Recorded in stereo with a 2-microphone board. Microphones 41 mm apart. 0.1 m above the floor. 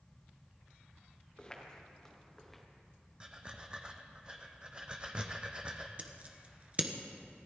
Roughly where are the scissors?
Right.